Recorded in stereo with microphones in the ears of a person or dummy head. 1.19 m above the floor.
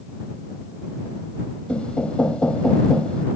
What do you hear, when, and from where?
1.7 s knocking: 10° left (ahead or behind)